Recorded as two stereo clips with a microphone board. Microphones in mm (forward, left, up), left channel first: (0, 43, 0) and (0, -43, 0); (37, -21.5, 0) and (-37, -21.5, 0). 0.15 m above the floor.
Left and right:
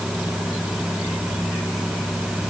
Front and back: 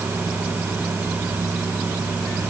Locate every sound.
Only background noise.